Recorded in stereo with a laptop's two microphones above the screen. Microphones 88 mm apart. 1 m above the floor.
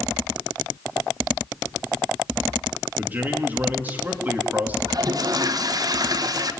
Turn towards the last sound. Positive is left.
turn(degrees=-50)  # may be behind; listen again after turning